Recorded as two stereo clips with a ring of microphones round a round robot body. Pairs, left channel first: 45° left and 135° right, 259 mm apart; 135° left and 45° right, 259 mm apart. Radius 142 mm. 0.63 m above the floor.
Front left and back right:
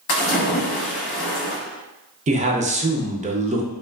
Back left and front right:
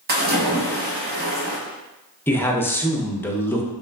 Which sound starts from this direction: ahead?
A splash, at 0.1 s.